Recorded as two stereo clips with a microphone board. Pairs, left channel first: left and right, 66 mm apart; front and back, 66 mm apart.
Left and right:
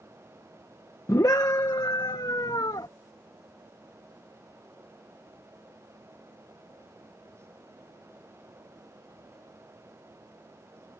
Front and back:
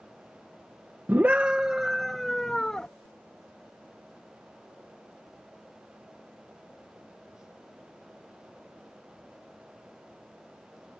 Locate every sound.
1.1 s a scream: 125° left; by 2.9 s 75° left